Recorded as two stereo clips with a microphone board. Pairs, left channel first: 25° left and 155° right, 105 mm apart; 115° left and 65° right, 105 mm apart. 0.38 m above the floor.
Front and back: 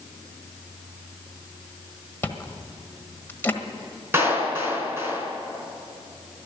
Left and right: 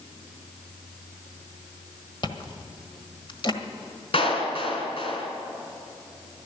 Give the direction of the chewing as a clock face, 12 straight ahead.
9 o'clock.